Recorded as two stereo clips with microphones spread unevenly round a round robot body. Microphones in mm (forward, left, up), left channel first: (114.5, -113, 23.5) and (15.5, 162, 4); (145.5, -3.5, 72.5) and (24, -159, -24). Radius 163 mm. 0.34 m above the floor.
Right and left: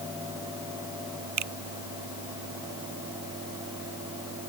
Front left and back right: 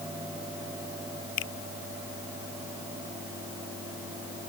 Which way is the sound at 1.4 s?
85° left.